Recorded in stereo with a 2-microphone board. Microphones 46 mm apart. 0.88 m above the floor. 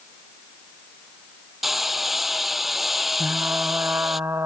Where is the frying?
65° right (ahead or behind).